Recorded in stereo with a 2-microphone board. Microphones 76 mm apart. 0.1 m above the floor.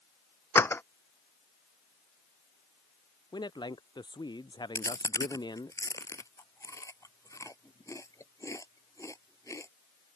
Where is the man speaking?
80° left.